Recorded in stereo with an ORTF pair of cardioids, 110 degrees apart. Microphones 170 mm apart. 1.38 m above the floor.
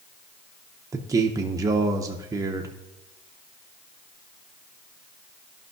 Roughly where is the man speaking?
Ahead.